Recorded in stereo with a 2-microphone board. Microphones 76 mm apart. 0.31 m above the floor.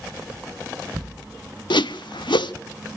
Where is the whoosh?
90° left, 0.5 m.